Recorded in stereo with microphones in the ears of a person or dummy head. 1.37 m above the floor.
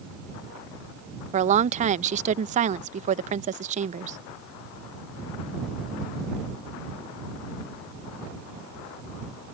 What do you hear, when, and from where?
1.3 s a woman speaking: 35° right (ahead or behind)